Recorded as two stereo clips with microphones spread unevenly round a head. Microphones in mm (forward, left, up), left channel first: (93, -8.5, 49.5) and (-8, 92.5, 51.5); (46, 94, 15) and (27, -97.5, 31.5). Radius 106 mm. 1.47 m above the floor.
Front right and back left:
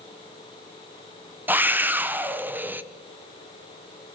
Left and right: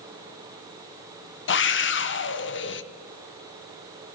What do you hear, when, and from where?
1.5 s a scream: 55° left, 1.4 m